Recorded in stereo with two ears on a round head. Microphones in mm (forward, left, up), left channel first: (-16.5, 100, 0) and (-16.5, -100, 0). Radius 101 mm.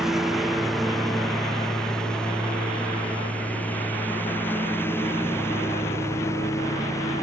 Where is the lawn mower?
Centre (ahead or behind); by 7.2 s 15° left (ahead or behind).